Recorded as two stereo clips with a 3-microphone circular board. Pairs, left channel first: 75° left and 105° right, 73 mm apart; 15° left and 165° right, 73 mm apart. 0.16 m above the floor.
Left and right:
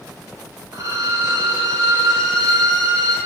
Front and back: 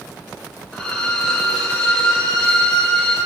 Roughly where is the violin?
Right.